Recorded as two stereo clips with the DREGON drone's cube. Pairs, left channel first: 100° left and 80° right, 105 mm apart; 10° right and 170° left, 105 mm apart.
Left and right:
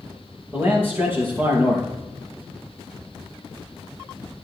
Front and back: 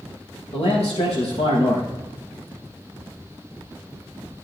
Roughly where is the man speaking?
Ahead.